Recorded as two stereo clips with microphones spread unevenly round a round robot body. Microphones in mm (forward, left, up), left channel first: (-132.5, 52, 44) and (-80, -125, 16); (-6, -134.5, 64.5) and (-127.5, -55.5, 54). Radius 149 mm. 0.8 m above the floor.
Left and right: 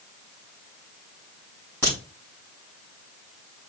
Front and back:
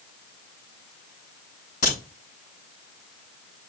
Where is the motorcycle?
No motorcycle in this recording.